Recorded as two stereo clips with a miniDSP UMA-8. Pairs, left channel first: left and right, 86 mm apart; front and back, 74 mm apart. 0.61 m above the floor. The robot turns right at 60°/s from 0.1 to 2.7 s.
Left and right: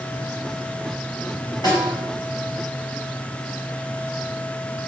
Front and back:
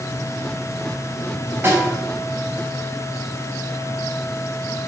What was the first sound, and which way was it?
A snare drum, 125° left.